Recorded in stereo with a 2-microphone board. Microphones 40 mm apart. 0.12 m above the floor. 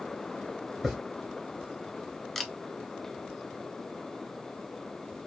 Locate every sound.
0.8 s a hiss: 10° right (ahead or behind), 2.5 m
2.4 s a camera shutter: 5° left (ahead or behind), 0.6 m